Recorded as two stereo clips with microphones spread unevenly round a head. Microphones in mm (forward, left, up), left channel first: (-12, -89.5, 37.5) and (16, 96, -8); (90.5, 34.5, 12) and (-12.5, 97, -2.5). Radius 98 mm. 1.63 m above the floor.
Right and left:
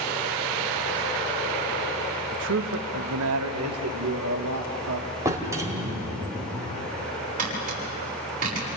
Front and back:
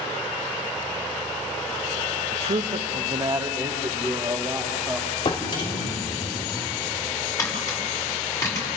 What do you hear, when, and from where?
2.3 s a man speaking: 115° left, 0.8 m; by 5.1 s 70° left, 2.5 m
5.2 s a drawer: straight ahead, 2.5 m
7.4 s tapping: 30° left, 7 m